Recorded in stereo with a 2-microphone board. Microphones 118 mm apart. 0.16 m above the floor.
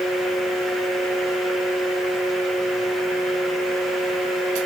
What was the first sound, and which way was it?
Only background noise.